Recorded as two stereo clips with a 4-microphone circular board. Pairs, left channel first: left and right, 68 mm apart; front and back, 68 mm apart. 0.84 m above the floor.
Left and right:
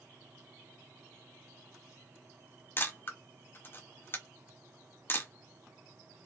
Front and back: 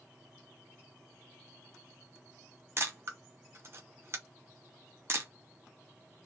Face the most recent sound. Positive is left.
turn(degrees=140)